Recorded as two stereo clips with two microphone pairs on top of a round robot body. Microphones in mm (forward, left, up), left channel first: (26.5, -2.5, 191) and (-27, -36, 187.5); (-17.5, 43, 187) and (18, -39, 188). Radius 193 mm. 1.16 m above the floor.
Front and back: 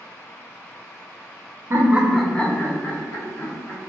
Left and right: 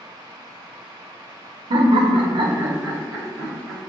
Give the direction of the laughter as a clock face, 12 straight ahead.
3 o'clock.